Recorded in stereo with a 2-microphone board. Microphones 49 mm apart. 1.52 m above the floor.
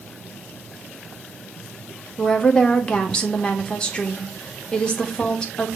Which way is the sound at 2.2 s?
20° left (ahead or behind).